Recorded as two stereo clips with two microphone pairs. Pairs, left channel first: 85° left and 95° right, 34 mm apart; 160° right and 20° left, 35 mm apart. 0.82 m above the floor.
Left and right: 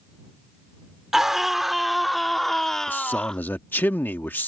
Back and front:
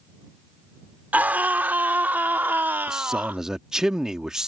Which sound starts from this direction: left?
A man speaking, at 2.9 s.